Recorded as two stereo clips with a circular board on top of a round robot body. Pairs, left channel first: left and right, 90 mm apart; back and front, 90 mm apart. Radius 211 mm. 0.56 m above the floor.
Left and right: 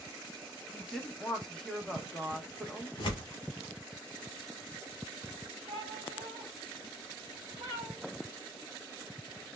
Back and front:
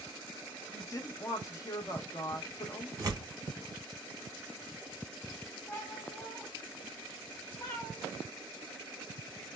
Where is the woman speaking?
170° left, 0.9 m.